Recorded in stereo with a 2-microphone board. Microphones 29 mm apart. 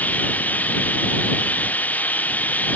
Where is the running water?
65° left (ahead or behind).